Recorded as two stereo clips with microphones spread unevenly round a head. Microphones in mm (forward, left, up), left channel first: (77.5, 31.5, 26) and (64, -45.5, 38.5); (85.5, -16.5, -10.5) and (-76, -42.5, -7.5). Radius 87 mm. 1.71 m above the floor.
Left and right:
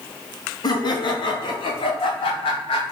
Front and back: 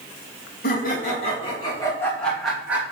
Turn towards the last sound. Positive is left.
turn(degrees=110)